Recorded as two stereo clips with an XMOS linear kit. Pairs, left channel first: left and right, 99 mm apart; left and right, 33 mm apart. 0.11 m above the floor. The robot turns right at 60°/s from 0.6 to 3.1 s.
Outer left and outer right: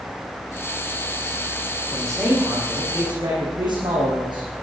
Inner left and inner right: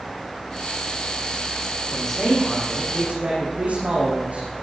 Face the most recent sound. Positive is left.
turn(degrees=-125)